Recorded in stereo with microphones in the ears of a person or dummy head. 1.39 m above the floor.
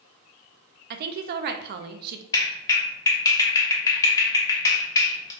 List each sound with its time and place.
0.9 s a woman speaking: 50° right (ahead or behind), 0.6 m
2.3 s a clap: 20° left (ahead or behind), 1.1 m